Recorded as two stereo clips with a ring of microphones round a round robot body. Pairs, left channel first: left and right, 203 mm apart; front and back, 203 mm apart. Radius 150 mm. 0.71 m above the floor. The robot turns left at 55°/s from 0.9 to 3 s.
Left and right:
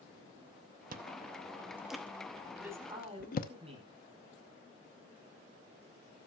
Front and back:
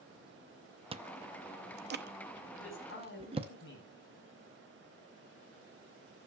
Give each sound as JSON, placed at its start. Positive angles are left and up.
{"t": 0.9, "sound": "chewing", "azimuth_deg": -125, "distance_m": 0.8}
{"t": 2.6, "sound": "a man speaking", "azimuth_deg": -5, "distance_m": 5.0}